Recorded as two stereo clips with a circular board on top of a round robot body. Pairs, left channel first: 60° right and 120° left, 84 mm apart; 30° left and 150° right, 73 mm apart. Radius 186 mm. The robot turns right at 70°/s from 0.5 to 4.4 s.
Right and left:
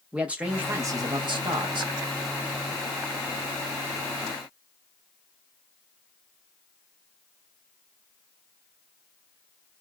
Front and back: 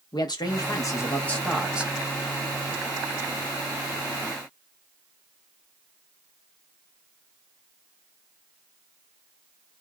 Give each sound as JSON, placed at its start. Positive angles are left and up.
{"t": 0.1, "sound": "a man speaking", "azimuth_deg": 45, "distance_m": 1.2}